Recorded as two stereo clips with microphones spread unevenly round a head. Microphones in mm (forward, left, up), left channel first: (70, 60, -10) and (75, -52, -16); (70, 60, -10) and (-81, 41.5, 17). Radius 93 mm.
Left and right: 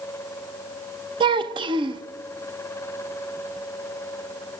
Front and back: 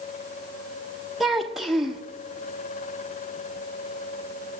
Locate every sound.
1.2 s a child speaking: 100° right, 1.0 m